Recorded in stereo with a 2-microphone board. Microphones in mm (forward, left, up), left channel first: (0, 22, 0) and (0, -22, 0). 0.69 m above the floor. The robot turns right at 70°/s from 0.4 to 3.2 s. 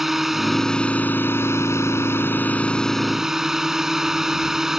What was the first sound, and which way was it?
A drone, 5° right.